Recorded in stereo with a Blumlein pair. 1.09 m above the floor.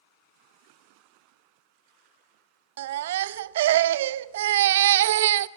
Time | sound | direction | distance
2.8 | a baby crying | 55° right | 0.5 m